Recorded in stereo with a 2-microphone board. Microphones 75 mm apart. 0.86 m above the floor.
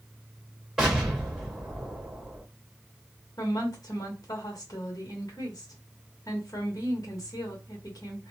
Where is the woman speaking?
55° left (ahead or behind), 1.3 m.